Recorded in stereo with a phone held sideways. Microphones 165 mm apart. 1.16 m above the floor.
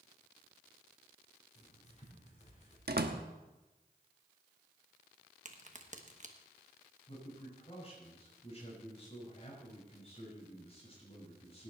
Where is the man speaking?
35° left (ahead or behind), 6 m.